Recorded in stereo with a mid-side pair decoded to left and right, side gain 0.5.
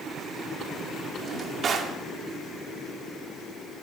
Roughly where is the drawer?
Ahead right.